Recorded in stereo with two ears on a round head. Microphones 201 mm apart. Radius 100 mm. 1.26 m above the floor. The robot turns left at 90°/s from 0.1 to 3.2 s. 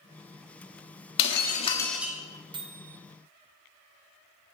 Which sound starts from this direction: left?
Breaking glass, at 1.2 s.